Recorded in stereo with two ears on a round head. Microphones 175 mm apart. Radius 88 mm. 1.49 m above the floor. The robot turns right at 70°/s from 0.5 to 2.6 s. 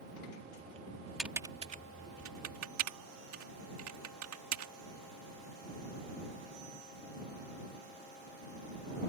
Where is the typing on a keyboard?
Centre (ahead or behind); by 4.7 s 80° right.